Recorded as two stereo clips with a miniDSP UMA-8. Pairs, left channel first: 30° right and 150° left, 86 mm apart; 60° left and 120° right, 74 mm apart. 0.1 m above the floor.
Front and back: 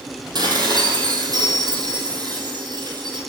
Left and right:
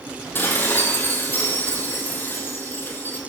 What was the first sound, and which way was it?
Dishes clattering, 120° left.